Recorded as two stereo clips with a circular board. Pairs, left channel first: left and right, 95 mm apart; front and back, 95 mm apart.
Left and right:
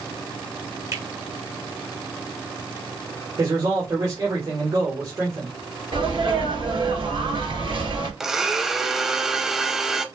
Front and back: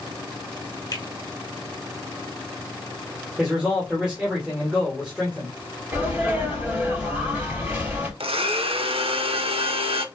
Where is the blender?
175° right, 0.6 m.